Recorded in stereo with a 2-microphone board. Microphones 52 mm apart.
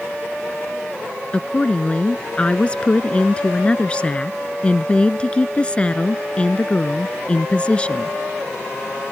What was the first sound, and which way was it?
A woman speaking, 25° left (ahead or behind).